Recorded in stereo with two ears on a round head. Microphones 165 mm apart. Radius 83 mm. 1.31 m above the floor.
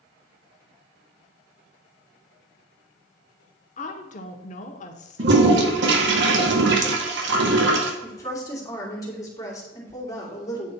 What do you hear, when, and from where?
3.8 s a woman speaking: 40° left (ahead or behind), 1.1 m
5.2 s a toilet flushing: 70° right (ahead or behind), 1.5 m
8.0 s a woman speaking: 20° left (ahead or behind), 3 m